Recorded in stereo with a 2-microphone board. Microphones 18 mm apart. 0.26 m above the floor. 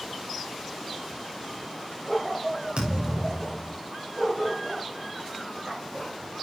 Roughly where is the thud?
Right.